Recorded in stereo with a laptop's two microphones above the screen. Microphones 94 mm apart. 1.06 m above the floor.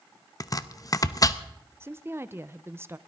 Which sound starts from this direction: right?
A woman speaking, at 1.8 s.